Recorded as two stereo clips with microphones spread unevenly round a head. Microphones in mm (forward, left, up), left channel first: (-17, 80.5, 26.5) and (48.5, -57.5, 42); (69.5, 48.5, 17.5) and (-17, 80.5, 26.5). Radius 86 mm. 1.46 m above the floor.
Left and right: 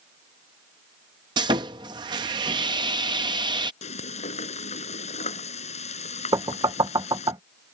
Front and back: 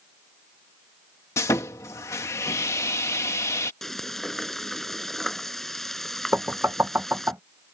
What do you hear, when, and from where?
1.4 s sawing: 70° right
3.8 s frying: 65° left
6.3 s knocking: 130° right